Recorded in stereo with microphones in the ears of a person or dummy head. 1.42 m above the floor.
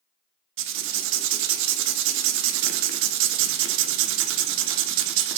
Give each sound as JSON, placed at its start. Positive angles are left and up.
{"t": 0.6, "sound": "writing", "side_deg": -65, "distance_m": 0.5}